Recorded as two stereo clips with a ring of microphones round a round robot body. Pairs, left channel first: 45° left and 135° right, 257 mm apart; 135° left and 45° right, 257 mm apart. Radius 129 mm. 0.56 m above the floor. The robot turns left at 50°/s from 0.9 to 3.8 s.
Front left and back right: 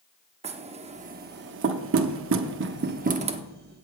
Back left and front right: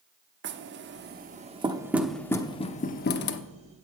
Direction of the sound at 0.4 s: 75° right.